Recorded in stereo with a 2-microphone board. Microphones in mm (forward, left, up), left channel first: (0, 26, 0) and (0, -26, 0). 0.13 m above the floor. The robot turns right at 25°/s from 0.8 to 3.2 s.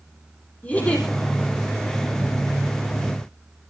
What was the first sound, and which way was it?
A giggle, 30° left (ahead or behind).